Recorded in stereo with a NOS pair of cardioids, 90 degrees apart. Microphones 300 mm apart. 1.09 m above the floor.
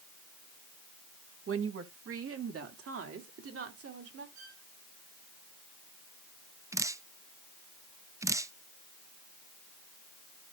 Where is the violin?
65° right, 7 m.